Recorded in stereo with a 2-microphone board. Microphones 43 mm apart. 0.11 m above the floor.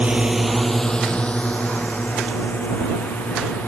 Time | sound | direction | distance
0.0 | a drone | 30° right (ahead or behind) | ?